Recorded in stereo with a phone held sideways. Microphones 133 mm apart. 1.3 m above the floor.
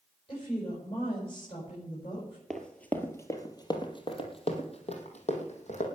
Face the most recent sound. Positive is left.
turn(degrees=60)  # may be behind; listen again after turning